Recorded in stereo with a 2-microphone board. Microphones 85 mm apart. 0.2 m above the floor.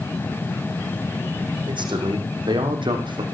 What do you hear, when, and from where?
1.7 s a man speaking: 70° right (ahead or behind), 8.5 m; by 3.2 s 75° right (ahead or behind), 6.5 m